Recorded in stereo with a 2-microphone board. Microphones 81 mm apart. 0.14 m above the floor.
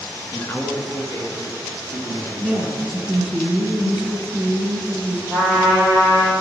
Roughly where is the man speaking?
Left.